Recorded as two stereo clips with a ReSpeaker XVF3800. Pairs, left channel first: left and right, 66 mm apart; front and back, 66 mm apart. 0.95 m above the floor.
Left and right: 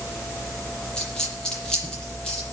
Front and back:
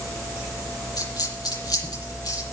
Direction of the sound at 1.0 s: 10° left.